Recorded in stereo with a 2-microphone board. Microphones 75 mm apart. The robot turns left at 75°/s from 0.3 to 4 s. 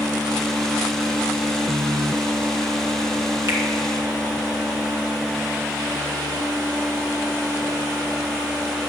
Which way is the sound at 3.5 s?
35° right (ahead or behind).